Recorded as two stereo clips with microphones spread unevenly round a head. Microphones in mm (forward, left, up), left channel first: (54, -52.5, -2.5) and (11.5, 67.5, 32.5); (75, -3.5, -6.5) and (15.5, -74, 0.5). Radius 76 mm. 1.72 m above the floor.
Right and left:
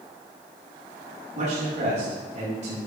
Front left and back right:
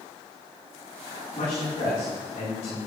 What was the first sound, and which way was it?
A man speaking, 80° left.